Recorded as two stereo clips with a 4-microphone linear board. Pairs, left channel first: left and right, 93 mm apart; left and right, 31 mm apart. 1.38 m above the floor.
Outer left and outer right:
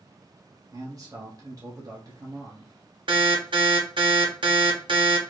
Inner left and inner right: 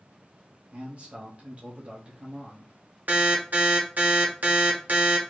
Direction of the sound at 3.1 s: 55° right (ahead or behind).